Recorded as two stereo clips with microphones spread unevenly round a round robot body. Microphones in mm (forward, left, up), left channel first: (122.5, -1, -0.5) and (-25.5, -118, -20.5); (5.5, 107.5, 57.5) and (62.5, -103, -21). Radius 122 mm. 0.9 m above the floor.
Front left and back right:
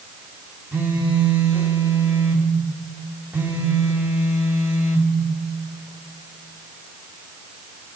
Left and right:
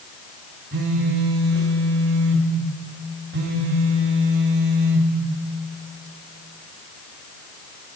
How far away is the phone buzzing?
About 3 m.